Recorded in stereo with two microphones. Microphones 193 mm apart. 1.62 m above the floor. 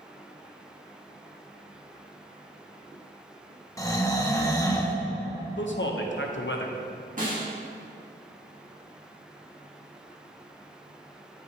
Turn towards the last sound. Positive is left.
turn(degrees=-45)  # may be behind; listen again after turning